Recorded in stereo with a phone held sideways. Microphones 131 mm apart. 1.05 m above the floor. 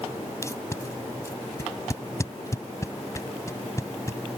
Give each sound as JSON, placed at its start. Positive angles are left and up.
{"t": 0.4, "sound": "tape being pulled", "side_deg": 25}